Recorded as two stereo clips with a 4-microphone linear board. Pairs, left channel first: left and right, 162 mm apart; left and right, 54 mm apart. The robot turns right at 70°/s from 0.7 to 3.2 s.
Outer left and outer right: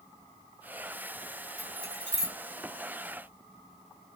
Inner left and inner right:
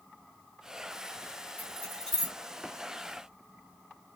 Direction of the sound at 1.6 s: 40° left (ahead or behind).